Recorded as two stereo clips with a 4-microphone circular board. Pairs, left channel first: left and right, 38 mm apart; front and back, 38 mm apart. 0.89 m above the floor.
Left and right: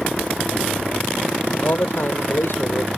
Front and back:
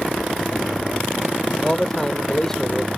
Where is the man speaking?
80° left.